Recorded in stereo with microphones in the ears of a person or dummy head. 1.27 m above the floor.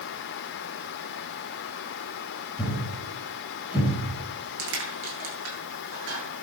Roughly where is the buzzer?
No buzzer in this recording.